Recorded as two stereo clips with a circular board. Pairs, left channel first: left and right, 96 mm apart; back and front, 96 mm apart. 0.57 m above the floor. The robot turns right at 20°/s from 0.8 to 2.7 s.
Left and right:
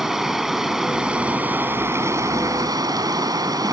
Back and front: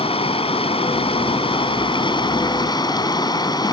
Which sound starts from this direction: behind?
Running water, at 0.0 s.